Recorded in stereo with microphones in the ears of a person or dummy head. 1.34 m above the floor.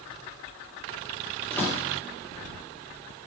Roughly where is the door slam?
Centre.